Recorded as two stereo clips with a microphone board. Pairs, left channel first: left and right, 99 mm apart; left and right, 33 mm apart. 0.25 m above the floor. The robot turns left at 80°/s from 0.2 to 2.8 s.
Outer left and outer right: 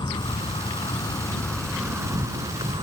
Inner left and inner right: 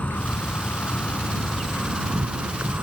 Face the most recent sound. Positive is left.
turn(degrees=-90)